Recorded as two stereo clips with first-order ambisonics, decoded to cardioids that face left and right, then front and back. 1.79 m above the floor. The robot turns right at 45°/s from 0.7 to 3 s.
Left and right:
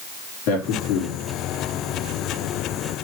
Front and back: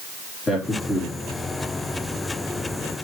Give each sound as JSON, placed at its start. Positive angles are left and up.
{"t": 0.5, "sound": "a man speaking", "azimuth_deg": 70, "distance_m": 4.0}